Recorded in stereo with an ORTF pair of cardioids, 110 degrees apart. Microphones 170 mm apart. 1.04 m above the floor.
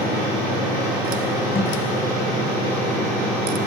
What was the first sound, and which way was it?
A thud, 35° left.